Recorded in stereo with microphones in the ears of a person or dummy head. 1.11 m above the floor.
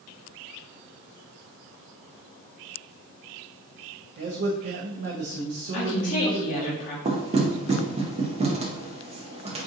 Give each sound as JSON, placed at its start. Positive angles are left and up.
{"t": 4.2, "sound": "a man speaking", "side_deg": -50, "distance_m": 0.7}
{"t": 5.7, "sound": "a woman speaking", "side_deg": 40, "distance_m": 1.0}
{"t": 7.0, "sound": "knocking", "side_deg": -25, "distance_m": 0.6}